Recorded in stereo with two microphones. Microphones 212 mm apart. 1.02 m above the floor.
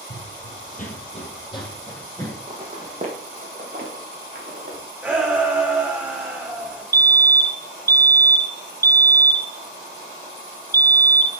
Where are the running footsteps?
45° left (ahead or behind), 1.5 m; by 2.4 s 10° left (ahead or behind), 3 m.